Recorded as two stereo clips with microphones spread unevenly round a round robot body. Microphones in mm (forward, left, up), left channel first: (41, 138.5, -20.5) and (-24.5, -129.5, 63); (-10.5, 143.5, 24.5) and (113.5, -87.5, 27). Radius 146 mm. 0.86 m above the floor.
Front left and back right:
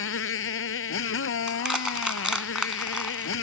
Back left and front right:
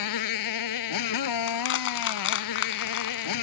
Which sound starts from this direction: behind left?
A motorcycle, at 0.0 s.